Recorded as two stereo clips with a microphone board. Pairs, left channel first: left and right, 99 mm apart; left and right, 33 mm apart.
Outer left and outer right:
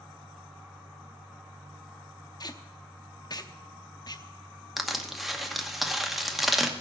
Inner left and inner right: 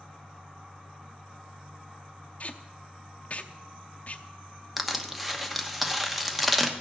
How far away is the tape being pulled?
About 0.7 m.